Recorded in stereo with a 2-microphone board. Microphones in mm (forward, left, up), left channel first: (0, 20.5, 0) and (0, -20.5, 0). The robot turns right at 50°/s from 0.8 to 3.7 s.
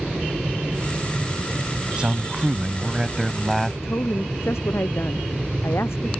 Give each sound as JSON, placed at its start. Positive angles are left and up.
{"t": 2.0, "sound": "a man speaking", "side_deg": -25}
{"t": 3.8, "sound": "a woman speaking", "side_deg": 85}